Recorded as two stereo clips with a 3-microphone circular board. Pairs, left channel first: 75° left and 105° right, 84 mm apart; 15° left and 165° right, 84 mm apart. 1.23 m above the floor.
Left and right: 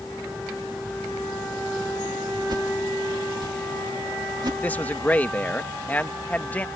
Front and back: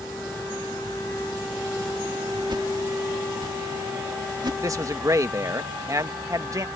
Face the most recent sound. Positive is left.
turn(degrees=145)